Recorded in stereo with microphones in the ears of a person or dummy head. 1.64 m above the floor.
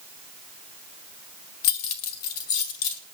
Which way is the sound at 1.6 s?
45° left (ahead or behind).